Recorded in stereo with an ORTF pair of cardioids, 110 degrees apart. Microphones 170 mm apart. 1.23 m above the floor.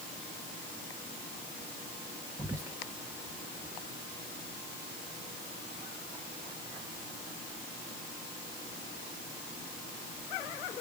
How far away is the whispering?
About 0.6 m.